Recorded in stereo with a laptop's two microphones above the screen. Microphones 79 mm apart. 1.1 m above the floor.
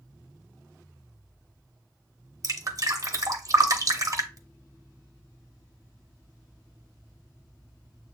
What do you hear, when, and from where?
2.4 s dripping: 45° right (ahead or behind), 0.7 m